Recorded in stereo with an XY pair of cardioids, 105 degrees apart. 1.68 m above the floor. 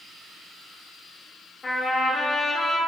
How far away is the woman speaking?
I don't hear a woman speaking.